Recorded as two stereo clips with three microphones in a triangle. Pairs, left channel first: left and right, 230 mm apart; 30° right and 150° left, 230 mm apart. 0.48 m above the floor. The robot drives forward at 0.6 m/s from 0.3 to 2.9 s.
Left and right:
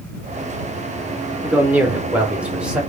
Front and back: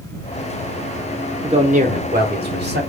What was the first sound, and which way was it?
A man speaking, 165° right.